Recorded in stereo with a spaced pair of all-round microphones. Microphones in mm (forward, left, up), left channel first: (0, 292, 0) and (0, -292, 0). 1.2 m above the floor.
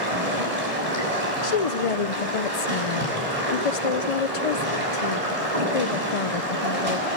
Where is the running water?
70° right (ahead or behind), 6.5 m.